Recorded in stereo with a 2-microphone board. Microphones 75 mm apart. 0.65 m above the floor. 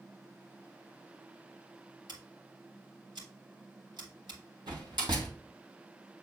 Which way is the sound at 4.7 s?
80° right.